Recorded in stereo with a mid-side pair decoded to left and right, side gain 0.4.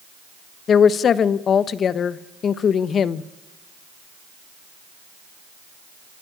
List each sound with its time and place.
0.7 s a woman speaking: 60° left, 1.1 m